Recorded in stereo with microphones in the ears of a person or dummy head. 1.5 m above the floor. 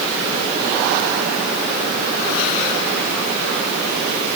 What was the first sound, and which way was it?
Only background noise.